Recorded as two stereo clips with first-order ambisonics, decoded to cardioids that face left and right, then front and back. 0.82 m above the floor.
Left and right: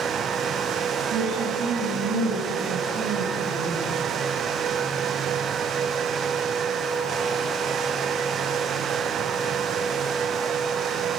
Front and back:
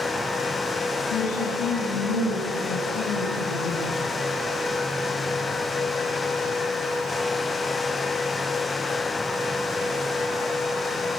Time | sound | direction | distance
1.1 | a woman speaking | 35° right | 6.5 m